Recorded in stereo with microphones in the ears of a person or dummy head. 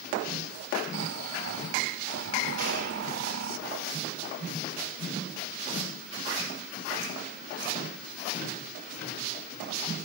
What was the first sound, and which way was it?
Snoring, 75° right (ahead or behind).